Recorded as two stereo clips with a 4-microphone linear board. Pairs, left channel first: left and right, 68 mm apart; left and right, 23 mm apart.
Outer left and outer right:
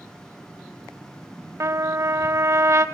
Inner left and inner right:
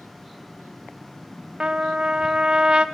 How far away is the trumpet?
About 0.9 m.